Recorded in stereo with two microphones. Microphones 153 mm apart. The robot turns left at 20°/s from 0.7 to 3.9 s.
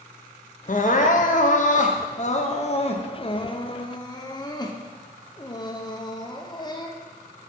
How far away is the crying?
About 0.8 m.